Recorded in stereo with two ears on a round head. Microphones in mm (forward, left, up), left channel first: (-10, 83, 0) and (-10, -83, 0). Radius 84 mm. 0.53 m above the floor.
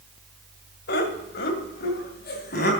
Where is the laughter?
65° left (ahead or behind), 2 m; by 2.7 s 55° left (ahead or behind), 3 m.